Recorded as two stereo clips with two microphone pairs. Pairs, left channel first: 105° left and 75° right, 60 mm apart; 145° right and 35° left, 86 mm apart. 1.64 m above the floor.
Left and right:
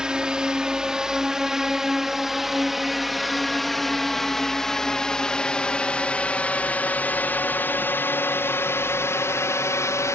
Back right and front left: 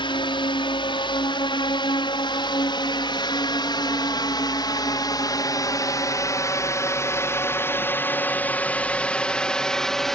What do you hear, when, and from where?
0.0 s a drone: 150° right; by 10.2 s 130° left